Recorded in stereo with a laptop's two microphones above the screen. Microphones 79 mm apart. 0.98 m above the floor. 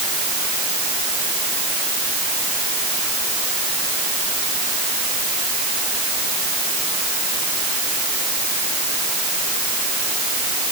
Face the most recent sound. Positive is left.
No sound to turn to.